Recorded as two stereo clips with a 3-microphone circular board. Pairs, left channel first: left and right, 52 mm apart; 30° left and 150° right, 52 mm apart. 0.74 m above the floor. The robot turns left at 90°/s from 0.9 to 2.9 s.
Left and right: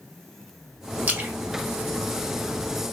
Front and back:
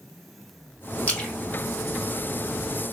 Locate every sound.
1.1 s a splash: 30° right, 1.3 m; by 1.3 s 55° right, 1.3 m